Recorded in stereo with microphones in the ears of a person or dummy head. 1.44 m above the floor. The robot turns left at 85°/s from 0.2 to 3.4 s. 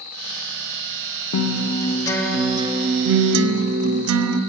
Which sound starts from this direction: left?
A guitar, at 1.3 s.